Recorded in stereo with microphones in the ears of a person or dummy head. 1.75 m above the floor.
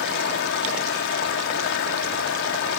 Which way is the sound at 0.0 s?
65° left (ahead or behind).